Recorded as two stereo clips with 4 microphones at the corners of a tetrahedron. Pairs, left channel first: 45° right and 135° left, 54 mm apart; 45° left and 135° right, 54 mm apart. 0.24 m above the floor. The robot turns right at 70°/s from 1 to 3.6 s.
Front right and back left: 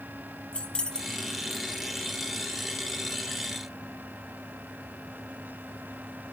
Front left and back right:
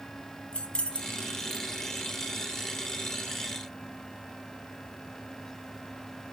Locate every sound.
0.5 s keys jangling: straight ahead, 0.7 m; by 1.7 s 45° left, 0.7 m